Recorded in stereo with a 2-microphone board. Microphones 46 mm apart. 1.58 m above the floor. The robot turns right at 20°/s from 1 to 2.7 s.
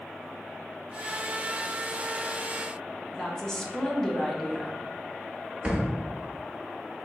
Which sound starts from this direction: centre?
A woman speaking, at 3.1 s.